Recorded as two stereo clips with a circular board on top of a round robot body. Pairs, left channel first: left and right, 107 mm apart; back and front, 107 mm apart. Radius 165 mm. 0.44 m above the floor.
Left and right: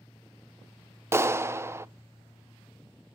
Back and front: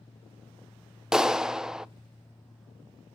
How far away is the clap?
About 0.6 m.